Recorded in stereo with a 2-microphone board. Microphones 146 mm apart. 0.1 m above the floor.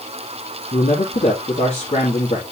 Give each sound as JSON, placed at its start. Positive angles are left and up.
{"t": 0.7, "sound": "a man speaking", "side_deg": 55, "distance_m": 3.0}